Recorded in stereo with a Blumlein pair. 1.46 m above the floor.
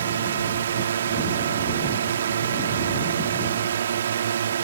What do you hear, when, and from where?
0.0 s a drone: 65° right